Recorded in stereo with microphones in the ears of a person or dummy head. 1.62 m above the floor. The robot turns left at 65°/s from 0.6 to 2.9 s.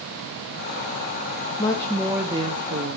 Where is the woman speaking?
30° left, 0.9 m; by 3.0 s 55° right, 0.9 m.